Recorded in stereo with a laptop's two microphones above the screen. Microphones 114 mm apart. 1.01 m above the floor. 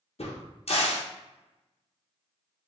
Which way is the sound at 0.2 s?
65° left (ahead or behind).